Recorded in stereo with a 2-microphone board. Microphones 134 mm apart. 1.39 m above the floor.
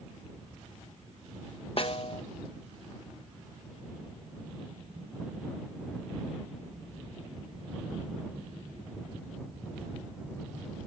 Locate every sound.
1.8 s a snare drum: 45° left (ahead or behind)